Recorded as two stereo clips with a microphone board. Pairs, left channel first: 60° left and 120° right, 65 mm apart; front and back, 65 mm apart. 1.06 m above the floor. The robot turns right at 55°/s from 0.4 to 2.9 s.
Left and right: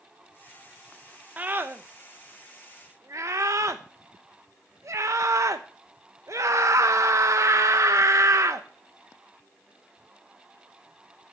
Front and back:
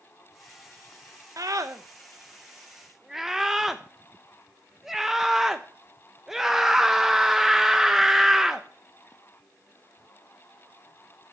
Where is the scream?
Straight behind, 1.0 m; by 8.7 s 95° right, 1.0 m.